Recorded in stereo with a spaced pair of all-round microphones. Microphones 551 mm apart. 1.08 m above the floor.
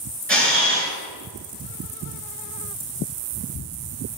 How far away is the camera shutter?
About 3.5 m.